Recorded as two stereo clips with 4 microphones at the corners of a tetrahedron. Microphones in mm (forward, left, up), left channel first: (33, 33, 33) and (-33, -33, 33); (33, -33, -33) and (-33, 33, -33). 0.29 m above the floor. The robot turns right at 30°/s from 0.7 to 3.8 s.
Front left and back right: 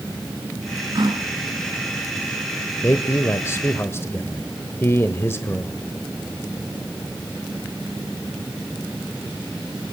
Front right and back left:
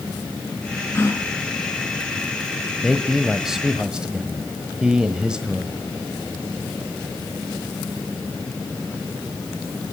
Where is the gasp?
105° right, 2 m; by 3.8 s 20° right, 2 m.